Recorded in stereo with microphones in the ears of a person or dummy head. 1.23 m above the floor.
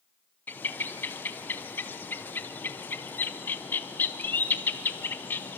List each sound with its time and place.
0.5 s a bird: 10° left (ahead or behind), 0.6 m